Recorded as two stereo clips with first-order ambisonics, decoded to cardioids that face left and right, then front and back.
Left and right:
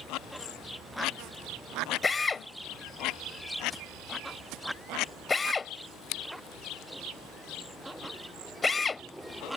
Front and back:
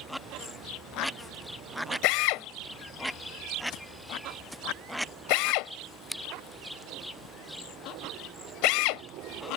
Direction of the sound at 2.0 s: 15° left.